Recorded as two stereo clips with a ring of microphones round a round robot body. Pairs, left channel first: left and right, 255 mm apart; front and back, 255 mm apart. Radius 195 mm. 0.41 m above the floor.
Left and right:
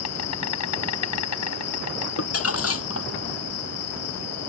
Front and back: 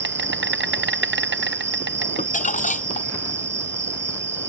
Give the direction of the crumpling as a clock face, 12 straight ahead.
10 o'clock.